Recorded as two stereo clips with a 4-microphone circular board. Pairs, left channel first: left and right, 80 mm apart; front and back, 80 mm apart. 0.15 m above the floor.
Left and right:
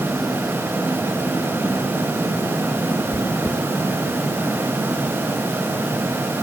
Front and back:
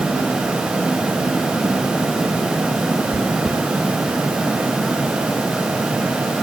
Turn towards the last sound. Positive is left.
turn(degrees=120)